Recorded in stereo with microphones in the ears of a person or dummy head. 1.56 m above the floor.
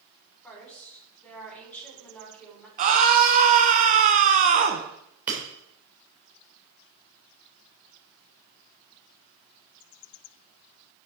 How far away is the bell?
No bell in this recording.